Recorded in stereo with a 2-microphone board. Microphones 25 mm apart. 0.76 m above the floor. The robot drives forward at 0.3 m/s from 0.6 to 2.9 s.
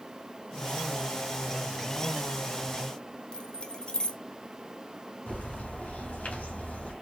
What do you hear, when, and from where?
3.3 s keys jangling: 40° left (ahead or behind), 0.6 m
5.3 s a bird: 75° left (ahead or behind), 2 m